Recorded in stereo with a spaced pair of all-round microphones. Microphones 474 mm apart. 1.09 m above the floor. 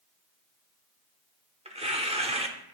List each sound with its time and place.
1.6 s tearing paper: 15° right (ahead or behind), 0.7 m